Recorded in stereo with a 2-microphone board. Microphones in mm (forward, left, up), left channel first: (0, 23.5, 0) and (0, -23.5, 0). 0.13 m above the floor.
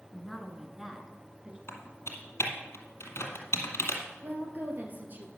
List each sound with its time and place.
0.1 s a woman speaking: 10° left (ahead or behind), 1.3 m; by 1.6 s 20° right (ahead or behind), 1.7 m
1.7 s typing on a keyboard: 70° left (ahead or behind), 2 m
4.2 s a woman speaking: 40° right (ahead or behind), 2 m